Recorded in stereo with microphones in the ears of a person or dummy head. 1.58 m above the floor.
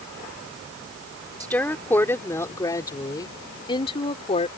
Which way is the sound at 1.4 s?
10° left (ahead or behind).